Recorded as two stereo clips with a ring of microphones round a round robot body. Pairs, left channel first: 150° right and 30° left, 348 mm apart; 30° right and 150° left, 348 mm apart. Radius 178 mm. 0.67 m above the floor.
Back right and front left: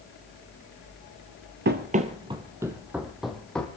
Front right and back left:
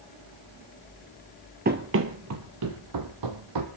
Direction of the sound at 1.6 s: 85° left.